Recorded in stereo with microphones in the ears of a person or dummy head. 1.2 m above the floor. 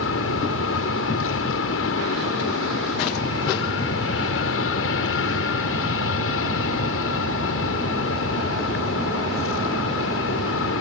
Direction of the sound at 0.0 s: 70° left (ahead or behind).